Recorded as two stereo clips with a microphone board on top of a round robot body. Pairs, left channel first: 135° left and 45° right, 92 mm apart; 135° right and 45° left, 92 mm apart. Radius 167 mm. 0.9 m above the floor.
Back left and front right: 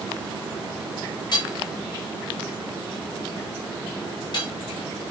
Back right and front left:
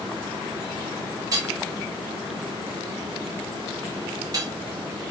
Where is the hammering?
95° left, 2.5 m.